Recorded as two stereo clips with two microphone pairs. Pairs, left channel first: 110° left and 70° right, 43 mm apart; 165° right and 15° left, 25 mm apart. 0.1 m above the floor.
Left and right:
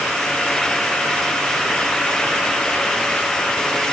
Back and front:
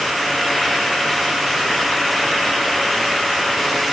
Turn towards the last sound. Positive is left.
No sound to turn to.